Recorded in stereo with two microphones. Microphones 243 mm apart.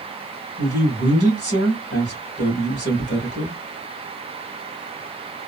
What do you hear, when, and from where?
0.6 s a man speaking: 45° left (ahead or behind), 1.6 m